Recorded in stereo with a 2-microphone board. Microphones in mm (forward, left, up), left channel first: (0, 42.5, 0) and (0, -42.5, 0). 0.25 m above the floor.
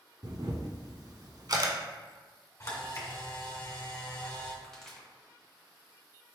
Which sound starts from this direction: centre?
A pop, at 4.6 s.